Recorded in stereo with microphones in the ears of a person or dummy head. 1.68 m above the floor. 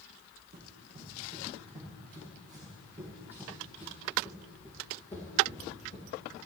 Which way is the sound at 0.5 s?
35° right (ahead or behind).